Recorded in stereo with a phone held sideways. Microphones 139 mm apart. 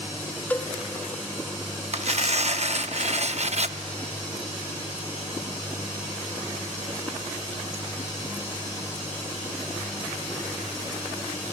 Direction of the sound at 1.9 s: 55° right (ahead or behind).